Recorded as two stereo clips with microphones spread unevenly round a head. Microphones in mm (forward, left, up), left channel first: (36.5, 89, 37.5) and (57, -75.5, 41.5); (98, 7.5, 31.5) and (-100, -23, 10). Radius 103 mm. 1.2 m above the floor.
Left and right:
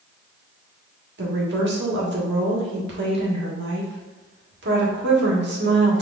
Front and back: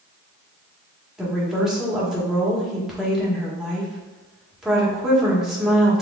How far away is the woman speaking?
About 1.6 m.